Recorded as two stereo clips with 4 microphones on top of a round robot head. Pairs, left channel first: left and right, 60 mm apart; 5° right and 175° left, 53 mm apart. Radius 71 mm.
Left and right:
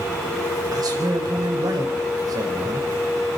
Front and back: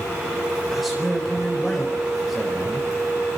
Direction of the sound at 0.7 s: 95° right.